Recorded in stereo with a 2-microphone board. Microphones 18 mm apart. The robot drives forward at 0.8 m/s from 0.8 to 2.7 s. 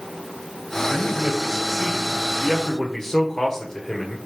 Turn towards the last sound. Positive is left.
turn(degrees=25)  # may be behind; listen again after turning